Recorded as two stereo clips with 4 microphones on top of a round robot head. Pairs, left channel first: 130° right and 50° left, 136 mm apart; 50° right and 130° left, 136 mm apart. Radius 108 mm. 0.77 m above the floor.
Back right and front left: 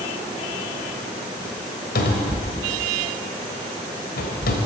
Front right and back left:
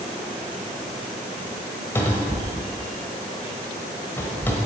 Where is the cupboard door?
125° right, 1.0 m.